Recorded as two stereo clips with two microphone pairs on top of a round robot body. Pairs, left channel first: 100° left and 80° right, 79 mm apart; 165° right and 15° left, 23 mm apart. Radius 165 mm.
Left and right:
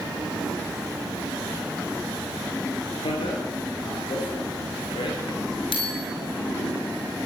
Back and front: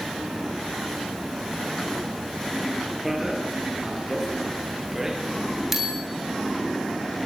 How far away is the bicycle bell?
About 6.5 m.